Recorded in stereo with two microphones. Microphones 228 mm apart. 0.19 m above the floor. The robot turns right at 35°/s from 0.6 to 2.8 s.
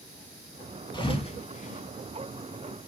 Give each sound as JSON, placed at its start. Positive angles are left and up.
{"t": 0.9, "sound": "a thud", "side_deg": 20, "distance_m": 0.6}